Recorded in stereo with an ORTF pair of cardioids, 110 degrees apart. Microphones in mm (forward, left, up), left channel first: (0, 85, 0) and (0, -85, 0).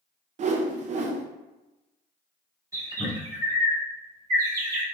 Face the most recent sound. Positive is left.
turn(degrees=-20)